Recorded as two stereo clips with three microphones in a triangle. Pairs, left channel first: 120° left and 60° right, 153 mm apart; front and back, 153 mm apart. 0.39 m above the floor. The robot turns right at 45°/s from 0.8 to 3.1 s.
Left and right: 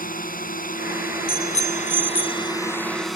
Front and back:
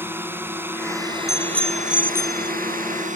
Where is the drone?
105° left; by 3.2 s 150° right.